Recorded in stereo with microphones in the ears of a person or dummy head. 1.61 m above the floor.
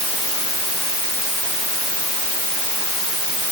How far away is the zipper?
I don't hear a zipper.